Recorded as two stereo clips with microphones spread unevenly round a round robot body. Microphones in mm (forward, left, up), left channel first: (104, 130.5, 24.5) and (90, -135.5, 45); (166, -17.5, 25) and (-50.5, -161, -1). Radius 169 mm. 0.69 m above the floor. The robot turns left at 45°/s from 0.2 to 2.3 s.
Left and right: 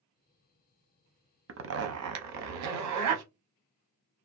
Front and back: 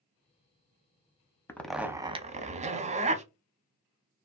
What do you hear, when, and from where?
1.5 s a zipper: 50° right, 0.6 m; by 3.2 s 85° right, 0.6 m